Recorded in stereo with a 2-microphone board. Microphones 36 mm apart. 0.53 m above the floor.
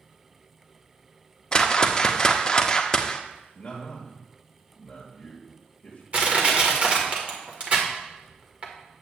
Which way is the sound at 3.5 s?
10° left (ahead or behind).